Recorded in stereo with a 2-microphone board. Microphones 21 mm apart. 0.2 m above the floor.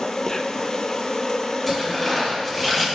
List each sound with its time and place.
0.0 s an insect: 25° left (ahead or behind), 0.8 m
1.7 s tearing paper: 10° right (ahead or behind), 4 m